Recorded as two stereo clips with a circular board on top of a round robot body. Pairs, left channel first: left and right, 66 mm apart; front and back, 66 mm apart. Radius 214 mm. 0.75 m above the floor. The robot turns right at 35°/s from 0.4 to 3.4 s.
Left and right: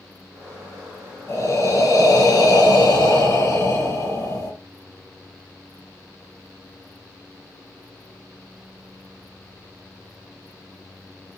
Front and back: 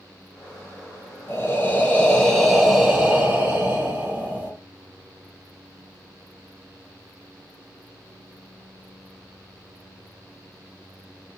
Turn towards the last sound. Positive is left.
turn(degrees=120)